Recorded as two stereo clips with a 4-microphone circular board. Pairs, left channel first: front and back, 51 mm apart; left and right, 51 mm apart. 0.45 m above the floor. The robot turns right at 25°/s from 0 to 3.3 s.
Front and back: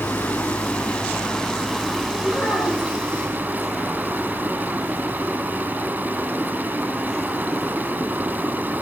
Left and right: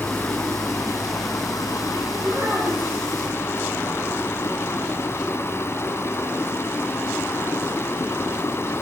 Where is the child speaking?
55° right, 8 m; by 3.0 s 35° right, 8 m.